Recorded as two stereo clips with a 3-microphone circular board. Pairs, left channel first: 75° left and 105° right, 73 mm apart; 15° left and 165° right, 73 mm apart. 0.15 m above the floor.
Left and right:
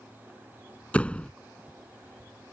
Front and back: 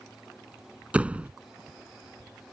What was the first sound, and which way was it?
A door slam, 135° left.